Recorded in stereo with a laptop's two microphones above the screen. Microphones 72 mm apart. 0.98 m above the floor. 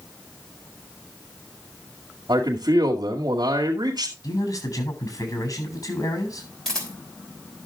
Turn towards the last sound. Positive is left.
turn(degrees=10)  # may be behind; listen again after turning